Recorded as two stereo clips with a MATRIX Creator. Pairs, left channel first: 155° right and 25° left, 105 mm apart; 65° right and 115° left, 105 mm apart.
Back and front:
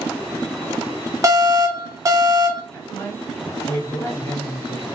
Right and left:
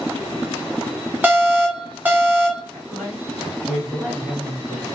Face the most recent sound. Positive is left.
turn(degrees=-160)